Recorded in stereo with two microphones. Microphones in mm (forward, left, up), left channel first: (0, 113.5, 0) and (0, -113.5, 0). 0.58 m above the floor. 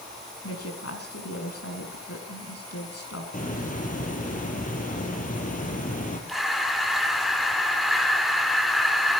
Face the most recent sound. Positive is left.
turn(degrees=0)  # may be behind; listen again after turning